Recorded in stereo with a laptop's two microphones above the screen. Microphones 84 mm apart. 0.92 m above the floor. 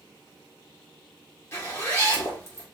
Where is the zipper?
30° left (ahead or behind), 1.5 m.